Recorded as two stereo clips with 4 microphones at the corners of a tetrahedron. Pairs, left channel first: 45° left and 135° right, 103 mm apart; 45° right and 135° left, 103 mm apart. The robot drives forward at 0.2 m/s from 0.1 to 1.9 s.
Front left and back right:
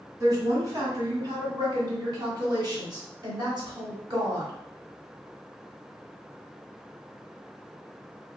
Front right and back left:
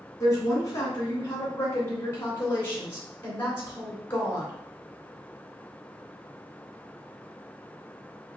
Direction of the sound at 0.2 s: 90° right.